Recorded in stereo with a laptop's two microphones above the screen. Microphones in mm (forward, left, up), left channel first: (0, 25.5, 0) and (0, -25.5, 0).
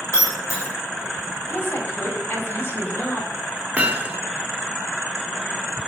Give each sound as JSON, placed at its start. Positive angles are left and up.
{"t": 0.1, "sound": "breaking glass", "side_deg": 65, "distance_m": 3.0}
{"t": 1.5, "sound": "a woman speaking", "side_deg": 45, "distance_m": 3.0}
{"t": 3.8, "sound": "hammering", "side_deg": -25, "distance_m": 1.1}